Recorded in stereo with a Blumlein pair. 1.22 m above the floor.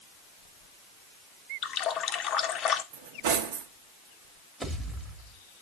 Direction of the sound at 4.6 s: 5° right.